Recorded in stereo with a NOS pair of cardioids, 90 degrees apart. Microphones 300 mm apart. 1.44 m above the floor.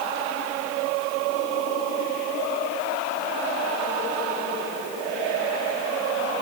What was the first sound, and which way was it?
Only background noise.